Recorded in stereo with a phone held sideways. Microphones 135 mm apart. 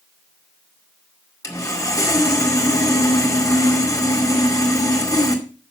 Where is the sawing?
25° left (ahead or behind), 2 m.